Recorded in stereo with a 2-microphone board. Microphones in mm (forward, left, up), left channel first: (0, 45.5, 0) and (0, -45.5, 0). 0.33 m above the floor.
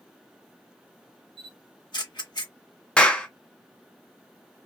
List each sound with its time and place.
1.4 s a camera shutter: 55° left (ahead or behind), 0.9 m
3.0 s a clap: 10° left (ahead or behind), 0.6 m